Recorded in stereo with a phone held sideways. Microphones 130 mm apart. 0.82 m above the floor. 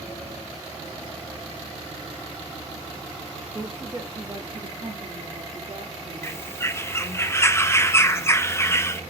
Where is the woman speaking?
5° right (ahead or behind), 1.0 m; by 7.2 s 65° right (ahead or behind), 3 m.